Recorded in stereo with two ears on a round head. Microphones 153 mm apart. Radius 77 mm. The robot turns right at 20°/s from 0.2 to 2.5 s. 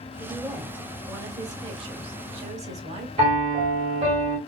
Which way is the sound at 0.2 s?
Straight behind.